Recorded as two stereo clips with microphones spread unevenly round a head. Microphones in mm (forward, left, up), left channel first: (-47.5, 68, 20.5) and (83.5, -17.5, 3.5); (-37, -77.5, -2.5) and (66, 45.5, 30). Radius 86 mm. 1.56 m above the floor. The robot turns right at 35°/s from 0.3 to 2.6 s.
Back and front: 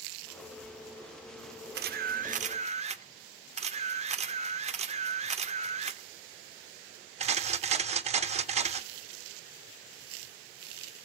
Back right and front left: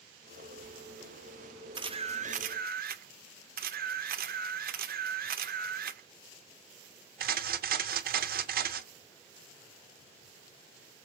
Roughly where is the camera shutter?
Ahead.